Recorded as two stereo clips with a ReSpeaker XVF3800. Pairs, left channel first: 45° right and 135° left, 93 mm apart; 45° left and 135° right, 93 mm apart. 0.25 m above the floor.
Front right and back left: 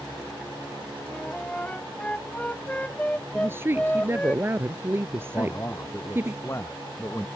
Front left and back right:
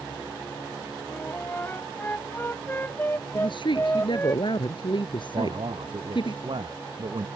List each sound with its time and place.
1.1 s a flute: 15° left
3.4 s a woman speaking: 70° left
5.3 s a man speaking: 105° right